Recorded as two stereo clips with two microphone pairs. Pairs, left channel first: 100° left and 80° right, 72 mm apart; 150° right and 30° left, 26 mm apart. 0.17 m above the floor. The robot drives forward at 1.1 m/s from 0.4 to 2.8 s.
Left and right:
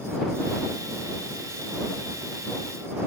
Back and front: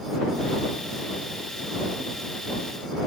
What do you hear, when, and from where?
Only background noise.